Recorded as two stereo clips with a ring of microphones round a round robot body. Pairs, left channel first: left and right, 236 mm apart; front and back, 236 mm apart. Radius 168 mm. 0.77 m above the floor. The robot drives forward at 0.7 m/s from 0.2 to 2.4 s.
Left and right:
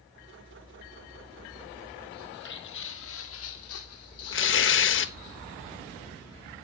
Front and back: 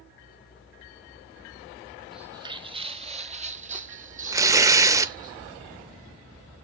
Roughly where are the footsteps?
Left.